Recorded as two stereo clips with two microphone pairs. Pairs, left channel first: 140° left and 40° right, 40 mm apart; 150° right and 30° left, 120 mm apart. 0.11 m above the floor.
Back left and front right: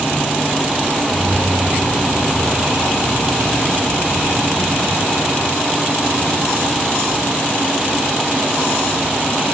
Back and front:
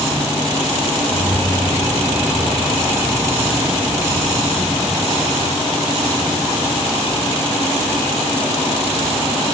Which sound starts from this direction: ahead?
Keys jangling, at 1.1 s.